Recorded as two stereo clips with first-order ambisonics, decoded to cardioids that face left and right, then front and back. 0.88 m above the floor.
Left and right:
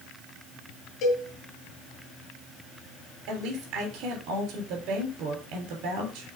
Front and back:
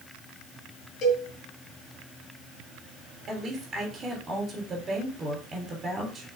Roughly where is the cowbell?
Ahead left.